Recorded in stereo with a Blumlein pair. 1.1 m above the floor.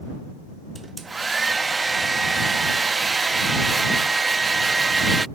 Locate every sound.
0.8 s a hair dryer: 10° right